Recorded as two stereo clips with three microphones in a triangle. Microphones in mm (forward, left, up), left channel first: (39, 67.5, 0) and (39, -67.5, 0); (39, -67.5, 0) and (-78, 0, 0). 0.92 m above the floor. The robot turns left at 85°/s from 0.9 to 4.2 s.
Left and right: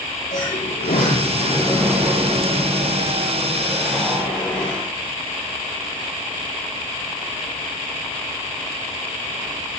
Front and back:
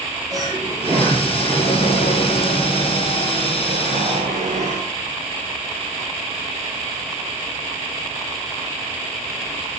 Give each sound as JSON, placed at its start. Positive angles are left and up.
{"t": 0.3, "sound": "a sliding door", "azimuth_deg": 90, "distance_m": 8.0}